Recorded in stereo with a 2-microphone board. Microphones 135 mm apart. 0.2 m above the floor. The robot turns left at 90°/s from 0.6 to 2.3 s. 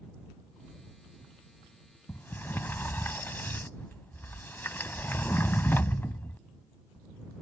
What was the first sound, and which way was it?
A sliding door, 20° left (ahead or behind).